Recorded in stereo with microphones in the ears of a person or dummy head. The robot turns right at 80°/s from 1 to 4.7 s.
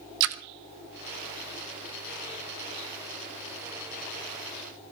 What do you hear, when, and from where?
0.2 s a splash: 70° right (ahead or behind), 1.1 m